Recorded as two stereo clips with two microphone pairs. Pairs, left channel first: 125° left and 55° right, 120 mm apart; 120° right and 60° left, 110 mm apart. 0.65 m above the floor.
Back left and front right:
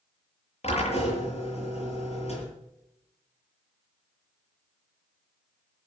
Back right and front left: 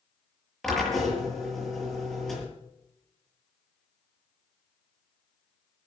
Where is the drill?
155° left, 7.5 m.